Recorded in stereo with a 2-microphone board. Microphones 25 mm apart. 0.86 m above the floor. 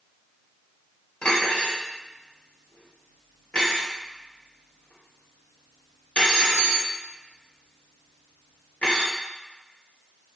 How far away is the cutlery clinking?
About 1.1 m.